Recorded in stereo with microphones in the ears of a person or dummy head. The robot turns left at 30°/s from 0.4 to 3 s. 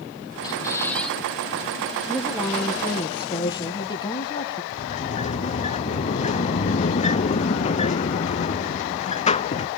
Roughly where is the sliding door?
Left.